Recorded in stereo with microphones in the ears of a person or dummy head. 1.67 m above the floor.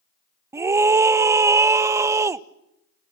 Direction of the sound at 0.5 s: 20° right (ahead or behind).